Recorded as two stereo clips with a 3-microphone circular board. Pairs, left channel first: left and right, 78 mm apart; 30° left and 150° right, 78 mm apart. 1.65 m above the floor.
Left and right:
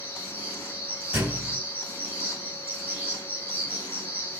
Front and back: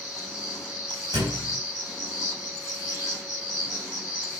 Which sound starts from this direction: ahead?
An insect, at 0.0 s.